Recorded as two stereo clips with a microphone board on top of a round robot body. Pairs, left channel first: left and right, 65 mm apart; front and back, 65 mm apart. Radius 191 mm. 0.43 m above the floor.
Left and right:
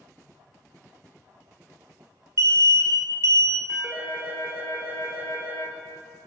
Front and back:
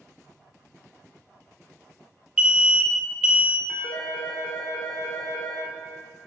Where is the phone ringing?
30° right, 1.7 m.